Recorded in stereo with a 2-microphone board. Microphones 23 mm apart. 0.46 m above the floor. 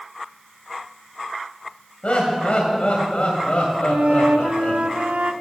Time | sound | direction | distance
2.0 | laughter | 60° left (ahead or behind) | 2.5 m
3.9 | a flute | 80° right | 0.8 m